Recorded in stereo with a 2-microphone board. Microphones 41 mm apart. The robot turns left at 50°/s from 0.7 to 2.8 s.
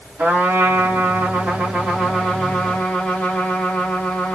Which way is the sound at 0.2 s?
95° right.